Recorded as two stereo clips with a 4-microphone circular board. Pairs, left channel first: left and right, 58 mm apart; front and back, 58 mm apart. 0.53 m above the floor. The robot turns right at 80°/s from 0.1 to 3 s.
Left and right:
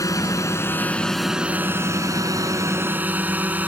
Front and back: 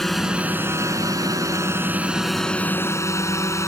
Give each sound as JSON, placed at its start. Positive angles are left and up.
{"t": 0.0, "sound": "a drone", "azimuth_deg": 85}